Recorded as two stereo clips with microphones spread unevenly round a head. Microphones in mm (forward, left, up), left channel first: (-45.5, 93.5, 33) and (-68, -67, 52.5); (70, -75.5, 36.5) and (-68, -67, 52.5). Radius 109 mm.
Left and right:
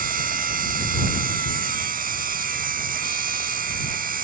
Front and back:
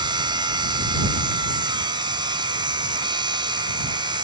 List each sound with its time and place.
0.0 s a machine running: 125° right